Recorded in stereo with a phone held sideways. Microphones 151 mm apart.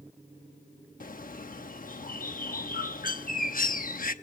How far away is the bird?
About 0.9 m.